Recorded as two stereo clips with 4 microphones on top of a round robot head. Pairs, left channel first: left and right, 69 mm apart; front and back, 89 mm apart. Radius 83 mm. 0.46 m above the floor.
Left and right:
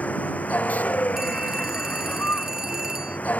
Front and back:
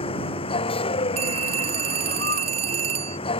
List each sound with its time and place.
0.0 s a vehicle: 20° left
1.2 s a phone ringing: 175° right